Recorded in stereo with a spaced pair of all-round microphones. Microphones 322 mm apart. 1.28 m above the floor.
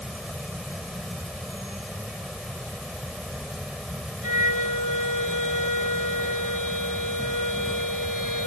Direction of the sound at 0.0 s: Centre (ahead or behind).